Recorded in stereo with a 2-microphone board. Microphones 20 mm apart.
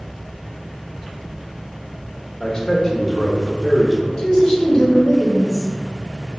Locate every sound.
2.4 s a man speaking: 40° left (ahead or behind), 1.2 m; by 4.1 s 10° left (ahead or behind), 1.0 m
4.2 s a woman speaking: 35° left (ahead or behind), 1.8 m